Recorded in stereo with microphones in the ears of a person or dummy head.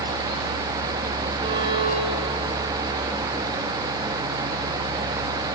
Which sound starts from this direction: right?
A violin, at 1.4 s.